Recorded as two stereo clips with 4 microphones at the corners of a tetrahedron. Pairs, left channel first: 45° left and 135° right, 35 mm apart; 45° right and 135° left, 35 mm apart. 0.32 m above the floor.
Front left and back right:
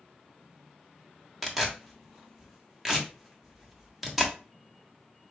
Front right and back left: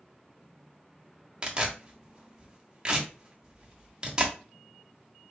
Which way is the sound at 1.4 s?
150° left.